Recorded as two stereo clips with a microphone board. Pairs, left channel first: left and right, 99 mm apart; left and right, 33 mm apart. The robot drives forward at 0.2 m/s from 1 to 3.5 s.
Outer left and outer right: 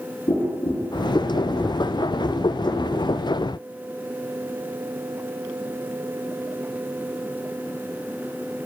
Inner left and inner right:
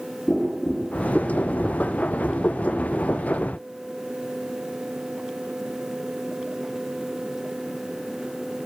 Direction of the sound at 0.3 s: 75° left (ahead or behind).